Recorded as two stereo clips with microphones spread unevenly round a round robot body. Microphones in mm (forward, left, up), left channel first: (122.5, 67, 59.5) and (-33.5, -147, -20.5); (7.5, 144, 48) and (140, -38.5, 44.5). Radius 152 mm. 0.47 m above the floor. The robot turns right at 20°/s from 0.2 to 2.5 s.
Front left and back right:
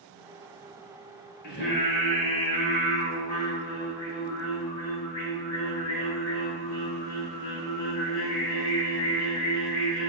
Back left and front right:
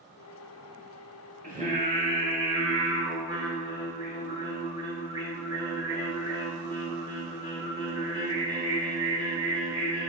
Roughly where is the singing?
Ahead.